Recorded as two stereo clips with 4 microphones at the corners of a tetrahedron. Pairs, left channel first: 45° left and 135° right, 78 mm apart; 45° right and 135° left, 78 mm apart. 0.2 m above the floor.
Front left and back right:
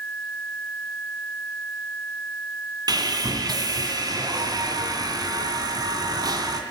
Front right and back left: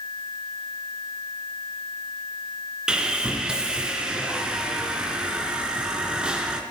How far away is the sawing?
About 2 m.